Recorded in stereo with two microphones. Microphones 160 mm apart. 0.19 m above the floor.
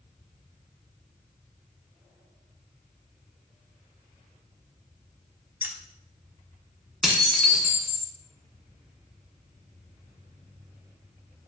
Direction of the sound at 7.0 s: Centre (ahead or behind).